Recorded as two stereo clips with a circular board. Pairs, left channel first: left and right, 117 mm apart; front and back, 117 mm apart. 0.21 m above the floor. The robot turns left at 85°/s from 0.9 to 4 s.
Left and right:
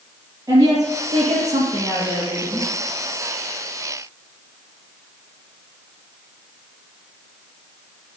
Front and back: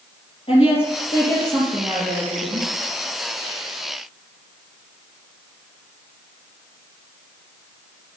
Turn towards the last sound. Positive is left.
turn(degrees=65)